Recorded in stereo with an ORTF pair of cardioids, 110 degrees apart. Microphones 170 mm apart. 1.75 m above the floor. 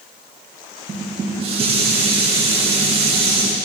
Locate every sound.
0.9 s dishes clattering: 35° right, 2 m